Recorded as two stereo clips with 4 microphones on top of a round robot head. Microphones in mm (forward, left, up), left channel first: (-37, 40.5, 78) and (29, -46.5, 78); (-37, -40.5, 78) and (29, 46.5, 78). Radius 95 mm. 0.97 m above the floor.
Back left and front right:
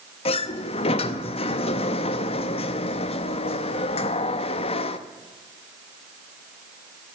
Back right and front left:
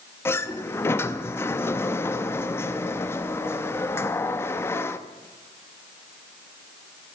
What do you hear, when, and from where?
0.2 s a sliding door: 165° left, 0.7 m